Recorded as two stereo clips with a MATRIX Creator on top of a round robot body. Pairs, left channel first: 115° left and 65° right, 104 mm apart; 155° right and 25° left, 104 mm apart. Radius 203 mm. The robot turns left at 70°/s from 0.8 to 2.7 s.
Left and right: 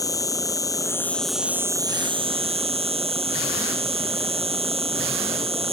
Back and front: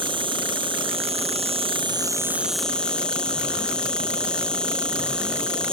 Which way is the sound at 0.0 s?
60° left.